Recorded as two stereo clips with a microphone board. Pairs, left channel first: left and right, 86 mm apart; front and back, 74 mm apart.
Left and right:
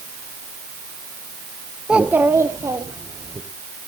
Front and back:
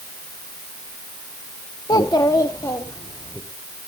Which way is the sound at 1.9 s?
10° right.